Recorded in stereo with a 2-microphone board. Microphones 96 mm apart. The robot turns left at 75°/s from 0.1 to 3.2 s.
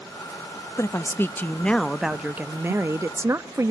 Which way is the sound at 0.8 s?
30° left (ahead or behind).